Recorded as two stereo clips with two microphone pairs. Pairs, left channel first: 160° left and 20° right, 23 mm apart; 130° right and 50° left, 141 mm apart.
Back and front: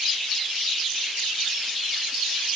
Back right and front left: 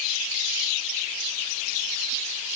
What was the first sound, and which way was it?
Only background noise.